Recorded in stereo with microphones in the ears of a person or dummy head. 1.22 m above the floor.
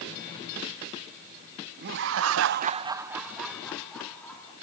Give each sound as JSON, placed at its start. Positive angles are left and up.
{"t": 1.8, "sound": "laughter", "side_deg": -55, "distance_m": 0.9}